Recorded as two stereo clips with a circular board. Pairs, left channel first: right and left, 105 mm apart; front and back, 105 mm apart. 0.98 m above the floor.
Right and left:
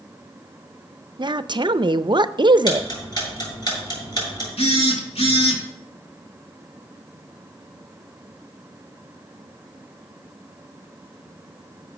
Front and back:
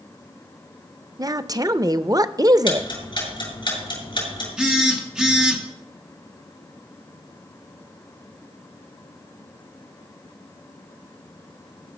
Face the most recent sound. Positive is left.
turn(degrees=-100)